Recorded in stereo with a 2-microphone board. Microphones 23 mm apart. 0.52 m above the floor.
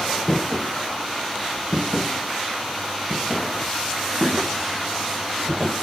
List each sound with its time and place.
0.3 s footsteps: 25° left (ahead or behind), 1.3 m; by 5.7 s 15° left (ahead or behind), 2 m